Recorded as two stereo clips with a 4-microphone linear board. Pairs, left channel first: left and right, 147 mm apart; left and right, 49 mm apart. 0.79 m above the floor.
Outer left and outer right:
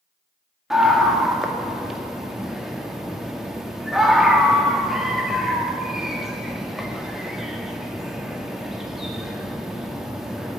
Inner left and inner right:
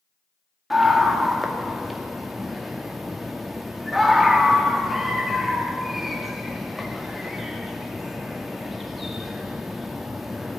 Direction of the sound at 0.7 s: 5° right (ahead or behind).